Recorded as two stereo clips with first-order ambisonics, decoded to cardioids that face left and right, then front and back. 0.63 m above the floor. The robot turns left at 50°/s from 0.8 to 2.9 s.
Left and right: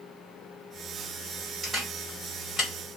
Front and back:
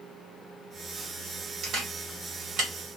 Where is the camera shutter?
155° right, 1.5 m; by 2.7 s 150° left, 1.5 m.